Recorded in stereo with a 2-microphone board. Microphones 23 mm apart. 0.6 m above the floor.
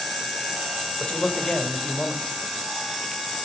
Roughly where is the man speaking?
Left.